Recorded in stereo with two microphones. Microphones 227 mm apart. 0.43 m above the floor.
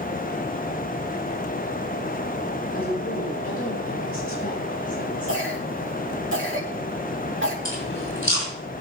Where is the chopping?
No chopping in this recording.